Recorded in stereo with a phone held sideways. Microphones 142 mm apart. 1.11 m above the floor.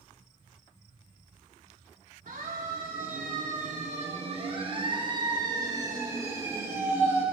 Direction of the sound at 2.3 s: 75° right (ahead or behind).